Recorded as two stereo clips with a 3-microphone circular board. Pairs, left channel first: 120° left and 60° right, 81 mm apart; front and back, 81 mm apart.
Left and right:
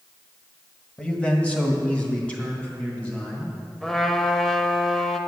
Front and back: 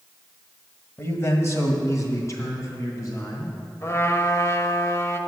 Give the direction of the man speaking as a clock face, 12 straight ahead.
10 o'clock.